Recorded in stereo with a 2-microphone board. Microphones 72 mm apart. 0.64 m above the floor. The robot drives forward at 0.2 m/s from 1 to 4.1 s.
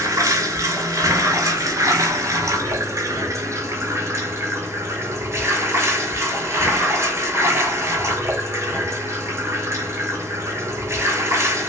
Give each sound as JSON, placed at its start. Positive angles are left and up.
{"t": 0.0, "sound": "running water", "side_deg": -50, "distance_m": 0.8}